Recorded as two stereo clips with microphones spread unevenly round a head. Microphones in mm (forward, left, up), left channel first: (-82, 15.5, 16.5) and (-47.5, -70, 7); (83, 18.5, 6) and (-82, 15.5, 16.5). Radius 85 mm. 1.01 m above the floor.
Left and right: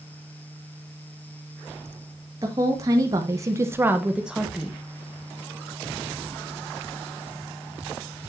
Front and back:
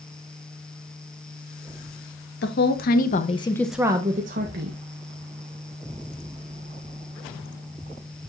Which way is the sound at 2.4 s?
10° right.